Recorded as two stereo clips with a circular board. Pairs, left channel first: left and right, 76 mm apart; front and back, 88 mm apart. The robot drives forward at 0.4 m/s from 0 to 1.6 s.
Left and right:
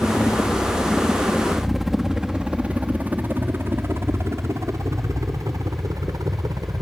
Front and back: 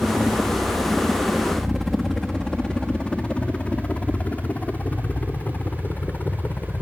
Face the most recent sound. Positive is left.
turn(degrees=-70)